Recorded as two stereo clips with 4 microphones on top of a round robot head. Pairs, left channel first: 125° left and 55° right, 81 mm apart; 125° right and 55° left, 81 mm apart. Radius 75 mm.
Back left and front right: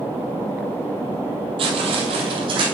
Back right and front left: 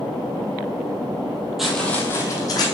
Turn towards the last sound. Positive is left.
turn(degrees=-85)